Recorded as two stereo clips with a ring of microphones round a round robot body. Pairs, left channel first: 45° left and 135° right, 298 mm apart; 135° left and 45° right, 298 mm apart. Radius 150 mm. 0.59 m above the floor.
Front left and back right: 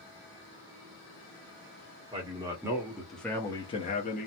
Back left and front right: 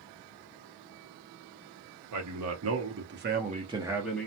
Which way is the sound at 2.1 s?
65° right.